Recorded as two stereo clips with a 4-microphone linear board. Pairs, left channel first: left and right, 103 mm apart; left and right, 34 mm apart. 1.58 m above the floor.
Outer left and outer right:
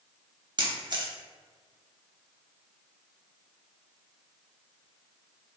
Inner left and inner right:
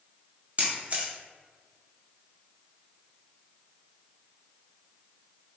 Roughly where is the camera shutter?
Right.